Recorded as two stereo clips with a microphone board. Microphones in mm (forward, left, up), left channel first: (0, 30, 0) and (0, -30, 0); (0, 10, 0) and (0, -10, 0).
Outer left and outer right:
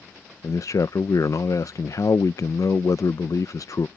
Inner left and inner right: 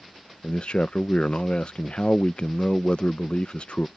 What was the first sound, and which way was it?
A man speaking, 60° left (ahead or behind).